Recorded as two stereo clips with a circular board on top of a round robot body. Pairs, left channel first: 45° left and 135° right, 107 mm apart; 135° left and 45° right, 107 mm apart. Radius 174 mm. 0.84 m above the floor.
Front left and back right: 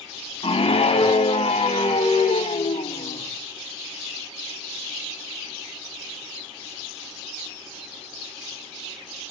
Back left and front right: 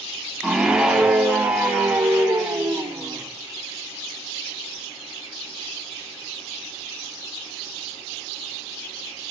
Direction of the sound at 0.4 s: 40° left.